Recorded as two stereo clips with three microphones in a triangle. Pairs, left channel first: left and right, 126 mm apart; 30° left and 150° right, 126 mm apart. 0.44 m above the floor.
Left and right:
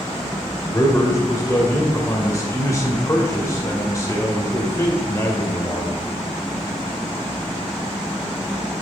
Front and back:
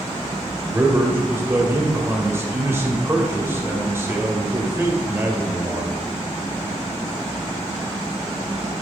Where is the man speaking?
145° left, 2 m.